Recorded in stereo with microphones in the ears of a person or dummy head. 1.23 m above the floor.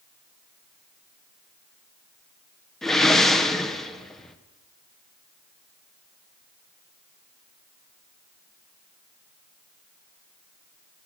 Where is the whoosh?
Centre (ahead or behind), 0.7 m.